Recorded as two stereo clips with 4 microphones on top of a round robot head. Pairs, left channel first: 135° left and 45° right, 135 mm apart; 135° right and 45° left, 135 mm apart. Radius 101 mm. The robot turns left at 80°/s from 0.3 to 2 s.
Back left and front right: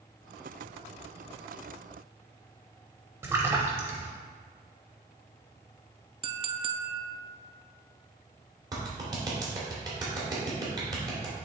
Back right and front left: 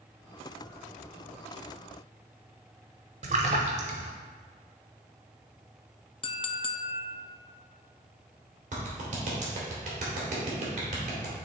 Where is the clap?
15° left, 2.5 m.